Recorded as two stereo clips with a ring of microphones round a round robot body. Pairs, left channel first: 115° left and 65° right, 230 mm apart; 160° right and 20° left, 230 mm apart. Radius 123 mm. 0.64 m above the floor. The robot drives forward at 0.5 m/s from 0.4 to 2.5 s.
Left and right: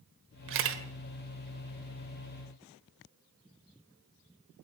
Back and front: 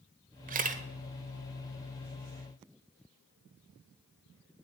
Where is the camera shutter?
35° right, 1.5 m.